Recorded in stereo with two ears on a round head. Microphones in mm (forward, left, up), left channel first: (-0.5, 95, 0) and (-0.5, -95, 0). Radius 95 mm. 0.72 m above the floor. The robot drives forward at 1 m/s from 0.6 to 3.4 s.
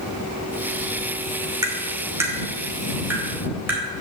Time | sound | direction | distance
1.6 | tapping | 20° right (ahead or behind) | 1.9 m